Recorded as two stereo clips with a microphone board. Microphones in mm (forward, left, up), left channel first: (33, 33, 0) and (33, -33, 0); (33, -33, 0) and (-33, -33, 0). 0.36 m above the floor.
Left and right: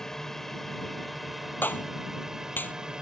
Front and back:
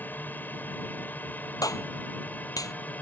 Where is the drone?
15° left; by 3.0 s 25° right.